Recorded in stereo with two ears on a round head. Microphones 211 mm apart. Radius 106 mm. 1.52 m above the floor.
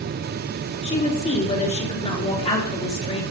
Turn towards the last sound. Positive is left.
turn(degrees=25)  # may be behind; listen again after turning